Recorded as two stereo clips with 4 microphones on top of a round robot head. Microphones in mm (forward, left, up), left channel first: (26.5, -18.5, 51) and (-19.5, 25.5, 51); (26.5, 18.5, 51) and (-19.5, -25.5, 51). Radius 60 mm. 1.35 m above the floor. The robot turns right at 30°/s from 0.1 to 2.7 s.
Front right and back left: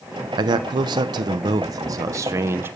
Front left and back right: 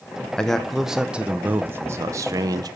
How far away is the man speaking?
About 0.8 m.